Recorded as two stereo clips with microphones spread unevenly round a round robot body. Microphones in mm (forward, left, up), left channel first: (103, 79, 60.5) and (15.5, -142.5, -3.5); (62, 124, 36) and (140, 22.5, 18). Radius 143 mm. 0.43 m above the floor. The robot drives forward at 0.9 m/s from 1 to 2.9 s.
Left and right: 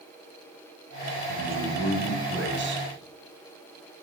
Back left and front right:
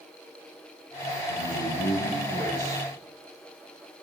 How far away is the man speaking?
About 4 m.